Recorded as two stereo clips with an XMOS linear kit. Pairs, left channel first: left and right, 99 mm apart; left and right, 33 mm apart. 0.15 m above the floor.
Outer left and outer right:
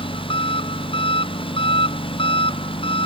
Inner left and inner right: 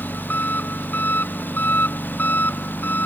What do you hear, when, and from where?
0.0 s an engine running: 65° left (ahead or behind)